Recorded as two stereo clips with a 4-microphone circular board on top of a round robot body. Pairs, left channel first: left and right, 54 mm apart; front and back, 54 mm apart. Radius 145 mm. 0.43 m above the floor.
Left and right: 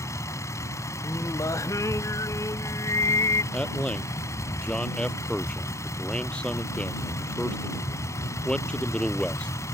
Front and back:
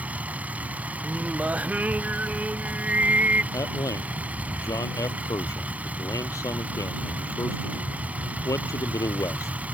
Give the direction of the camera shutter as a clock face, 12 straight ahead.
I don't hear a camera shutter.